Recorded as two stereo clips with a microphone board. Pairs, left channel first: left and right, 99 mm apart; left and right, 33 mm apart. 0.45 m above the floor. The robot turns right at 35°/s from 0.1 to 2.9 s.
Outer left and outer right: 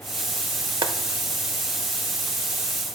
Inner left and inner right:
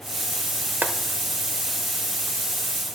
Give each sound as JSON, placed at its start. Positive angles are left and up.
{"t": 0.8, "sound": "boiling", "side_deg": -60, "distance_m": 0.8}